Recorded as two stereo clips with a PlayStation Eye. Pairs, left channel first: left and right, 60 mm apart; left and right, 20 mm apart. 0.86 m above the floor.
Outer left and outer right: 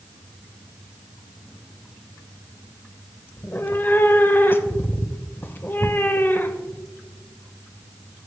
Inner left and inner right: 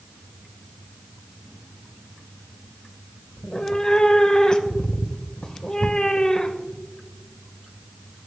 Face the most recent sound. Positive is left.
turn(degrees=35)  # may be behind; listen again after turning